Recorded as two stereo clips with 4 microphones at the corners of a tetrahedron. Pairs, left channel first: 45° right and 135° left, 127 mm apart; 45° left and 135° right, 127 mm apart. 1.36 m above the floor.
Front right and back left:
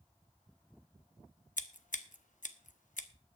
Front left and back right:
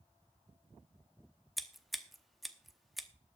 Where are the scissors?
45° right, 0.8 m.